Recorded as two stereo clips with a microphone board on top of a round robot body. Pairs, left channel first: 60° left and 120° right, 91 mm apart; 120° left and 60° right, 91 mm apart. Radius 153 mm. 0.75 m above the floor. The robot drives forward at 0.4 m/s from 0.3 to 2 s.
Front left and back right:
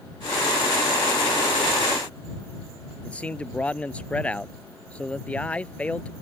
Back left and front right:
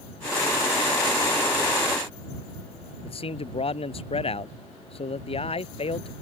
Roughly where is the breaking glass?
I don't hear breaking glass.